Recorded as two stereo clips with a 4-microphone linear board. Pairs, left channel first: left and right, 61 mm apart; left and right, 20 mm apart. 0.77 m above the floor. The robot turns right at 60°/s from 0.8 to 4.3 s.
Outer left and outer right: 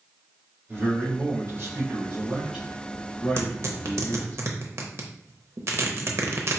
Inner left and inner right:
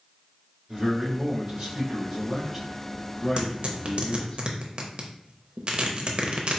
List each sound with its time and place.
0.7 s a man speaking: 125° right, 1.8 m; by 4.4 s 85° left, 1.8 m
3.4 s tearing paper: 45° right (ahead or behind), 0.7 m; by 6.6 s 50° right (ahead or behind), 0.7 m